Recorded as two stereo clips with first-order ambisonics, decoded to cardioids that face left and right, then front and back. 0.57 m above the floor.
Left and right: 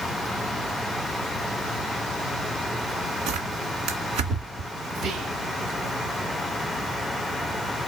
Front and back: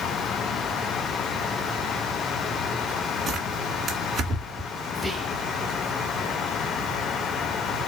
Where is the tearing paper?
110° right, 2 m.